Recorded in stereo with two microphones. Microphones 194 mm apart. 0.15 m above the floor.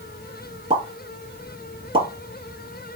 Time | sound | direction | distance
0.7 | a pop | 25° right (ahead or behind) | 1.4 m